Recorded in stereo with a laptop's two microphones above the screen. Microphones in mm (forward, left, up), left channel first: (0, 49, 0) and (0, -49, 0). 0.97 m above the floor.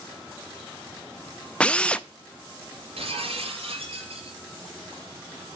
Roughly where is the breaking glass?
Right.